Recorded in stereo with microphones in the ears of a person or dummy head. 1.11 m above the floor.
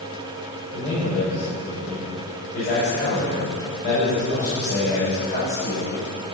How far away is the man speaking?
About 5.5 m.